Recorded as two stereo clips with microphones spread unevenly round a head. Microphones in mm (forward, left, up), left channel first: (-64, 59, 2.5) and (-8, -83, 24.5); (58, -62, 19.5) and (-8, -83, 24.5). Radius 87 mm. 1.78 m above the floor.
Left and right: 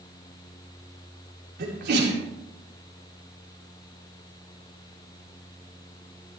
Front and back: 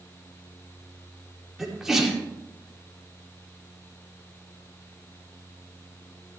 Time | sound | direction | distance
1.6 | a sneeze | 80° right | 5 m